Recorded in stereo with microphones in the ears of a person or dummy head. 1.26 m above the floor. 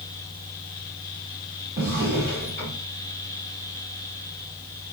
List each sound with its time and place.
1.8 s a drawer: 40° right (ahead or behind), 1.5 m